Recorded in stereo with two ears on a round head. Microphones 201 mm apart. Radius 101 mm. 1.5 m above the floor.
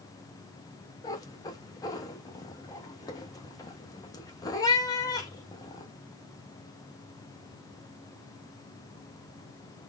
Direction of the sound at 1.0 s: 15° left (ahead or behind).